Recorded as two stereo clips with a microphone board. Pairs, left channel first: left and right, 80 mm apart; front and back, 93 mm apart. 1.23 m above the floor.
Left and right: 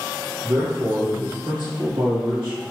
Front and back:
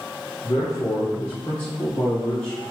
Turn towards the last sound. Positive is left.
turn(degrees=-80)